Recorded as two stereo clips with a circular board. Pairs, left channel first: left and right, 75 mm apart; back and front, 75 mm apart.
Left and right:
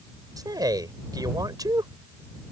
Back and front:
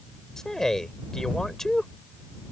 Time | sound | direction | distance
0.4 | a man speaking | 95° right | ?